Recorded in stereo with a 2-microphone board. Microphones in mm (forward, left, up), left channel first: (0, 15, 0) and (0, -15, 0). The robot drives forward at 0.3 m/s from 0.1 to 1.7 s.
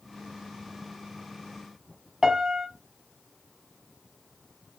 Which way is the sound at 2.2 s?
15° right (ahead or behind).